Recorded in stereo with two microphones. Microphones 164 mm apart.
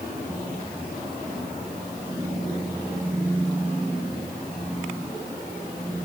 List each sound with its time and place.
Only background noise.